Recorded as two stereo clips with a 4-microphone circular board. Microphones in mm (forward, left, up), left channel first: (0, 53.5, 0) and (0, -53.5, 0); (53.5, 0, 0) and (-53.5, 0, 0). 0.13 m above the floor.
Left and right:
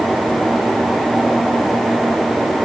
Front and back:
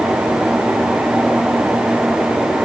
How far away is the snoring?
I don't hear snoring.